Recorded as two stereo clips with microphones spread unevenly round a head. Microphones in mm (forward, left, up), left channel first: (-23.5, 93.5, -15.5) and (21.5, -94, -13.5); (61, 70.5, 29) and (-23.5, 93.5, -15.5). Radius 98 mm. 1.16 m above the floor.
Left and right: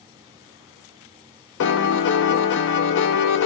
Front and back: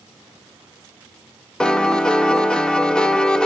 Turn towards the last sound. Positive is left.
turn(degrees=70)